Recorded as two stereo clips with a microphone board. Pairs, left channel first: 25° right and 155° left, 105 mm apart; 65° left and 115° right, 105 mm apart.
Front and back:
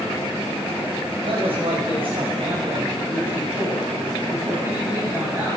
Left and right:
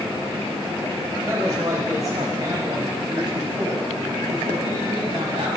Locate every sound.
1.2 s a woman speaking: 175° right, 4 m; by 5.6 s 140° right, 6.5 m